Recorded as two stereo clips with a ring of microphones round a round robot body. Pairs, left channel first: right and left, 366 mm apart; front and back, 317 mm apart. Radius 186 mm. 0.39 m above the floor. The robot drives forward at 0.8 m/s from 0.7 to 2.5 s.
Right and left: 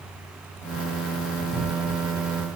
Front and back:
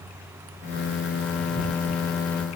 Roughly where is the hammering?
I don't hear hammering.